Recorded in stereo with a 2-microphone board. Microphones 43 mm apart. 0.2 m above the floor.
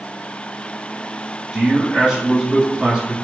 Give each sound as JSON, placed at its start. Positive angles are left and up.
{"t": 1.5, "sound": "a man speaking", "side_deg": -15, "distance_m": 1.4}